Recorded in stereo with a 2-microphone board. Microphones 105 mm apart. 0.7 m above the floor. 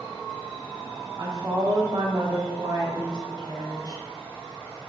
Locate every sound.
1.2 s a woman speaking: 40° right (ahead or behind), 0.6 m